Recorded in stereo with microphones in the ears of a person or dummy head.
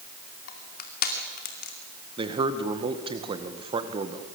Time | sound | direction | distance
0.5 | crushing | 45° left (ahead or behind) | 2.5 m
2.2 | a man speaking | 30° right (ahead or behind) | 2 m